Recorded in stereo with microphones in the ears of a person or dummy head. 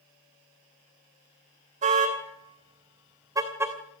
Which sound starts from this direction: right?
A car horn, at 1.8 s.